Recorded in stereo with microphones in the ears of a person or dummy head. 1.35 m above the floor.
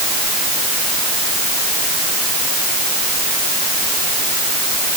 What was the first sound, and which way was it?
Only background noise.